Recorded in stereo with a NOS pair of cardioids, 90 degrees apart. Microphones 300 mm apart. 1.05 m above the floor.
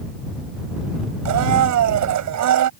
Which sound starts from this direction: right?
A blender, at 1.2 s.